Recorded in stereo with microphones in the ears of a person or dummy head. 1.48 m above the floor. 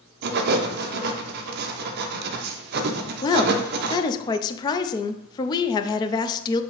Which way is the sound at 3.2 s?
25° left (ahead or behind).